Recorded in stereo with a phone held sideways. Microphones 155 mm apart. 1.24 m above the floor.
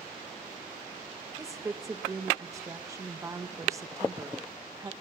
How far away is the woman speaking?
About 1.4 m.